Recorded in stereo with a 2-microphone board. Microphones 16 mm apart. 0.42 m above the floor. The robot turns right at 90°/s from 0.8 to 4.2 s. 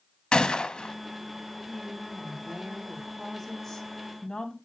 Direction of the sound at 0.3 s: 75° left (ahead or behind).